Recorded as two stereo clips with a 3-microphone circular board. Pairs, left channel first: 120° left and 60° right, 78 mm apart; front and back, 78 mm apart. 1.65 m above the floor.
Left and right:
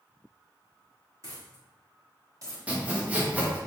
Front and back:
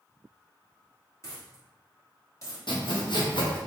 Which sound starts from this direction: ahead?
Sawing, at 2.7 s.